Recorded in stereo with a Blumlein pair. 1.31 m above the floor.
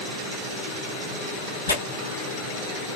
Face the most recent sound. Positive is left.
turn(degrees=65)